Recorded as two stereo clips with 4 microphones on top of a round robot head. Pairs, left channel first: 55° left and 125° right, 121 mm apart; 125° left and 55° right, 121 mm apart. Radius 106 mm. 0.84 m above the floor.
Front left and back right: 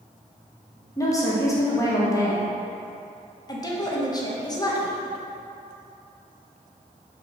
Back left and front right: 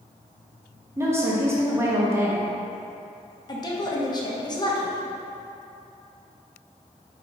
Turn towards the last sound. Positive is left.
turn(degrees=95)